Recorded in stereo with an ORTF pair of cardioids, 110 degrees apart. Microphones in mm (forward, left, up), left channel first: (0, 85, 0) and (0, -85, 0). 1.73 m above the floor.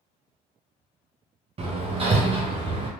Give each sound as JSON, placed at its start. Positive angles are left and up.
{"t": 1.6, "sound": "hammering", "azimuth_deg": -35, "distance_m": 1.0}